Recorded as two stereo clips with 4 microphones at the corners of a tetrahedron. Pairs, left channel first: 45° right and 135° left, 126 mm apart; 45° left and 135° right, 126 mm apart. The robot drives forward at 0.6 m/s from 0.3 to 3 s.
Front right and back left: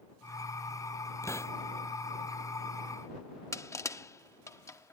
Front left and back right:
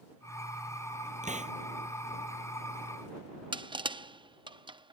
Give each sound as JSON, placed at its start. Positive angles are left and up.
{"t": 1.2, "sound": "a hiss", "azimuth_deg": -115}
{"t": 3.5, "sound": "crushing", "azimuth_deg": -100}